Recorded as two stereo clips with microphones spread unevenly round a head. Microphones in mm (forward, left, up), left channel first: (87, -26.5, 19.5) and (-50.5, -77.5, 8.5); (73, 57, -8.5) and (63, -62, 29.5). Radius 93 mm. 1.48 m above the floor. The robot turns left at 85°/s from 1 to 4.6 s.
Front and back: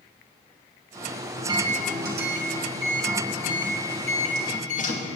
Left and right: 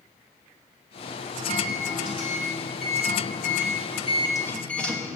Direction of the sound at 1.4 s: 90° right.